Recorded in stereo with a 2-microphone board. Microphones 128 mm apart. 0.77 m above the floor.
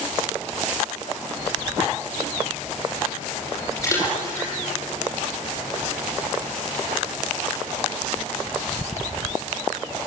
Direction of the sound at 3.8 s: 25° left (ahead or behind).